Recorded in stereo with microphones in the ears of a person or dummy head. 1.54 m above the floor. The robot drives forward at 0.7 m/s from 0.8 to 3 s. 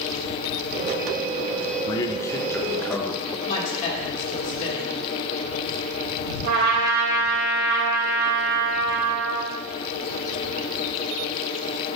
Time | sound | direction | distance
1.9 | a man speaking | 20° left (ahead or behind) | 0.6 m
3.5 | a woman speaking | 35° left (ahead or behind) | 2 m
6.4 | a trumpet | 60° right (ahead or behind) | 2 m